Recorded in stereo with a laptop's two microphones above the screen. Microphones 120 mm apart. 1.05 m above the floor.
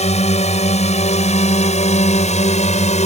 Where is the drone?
70° left (ahead or behind); by 3.1 s 75° left (ahead or behind).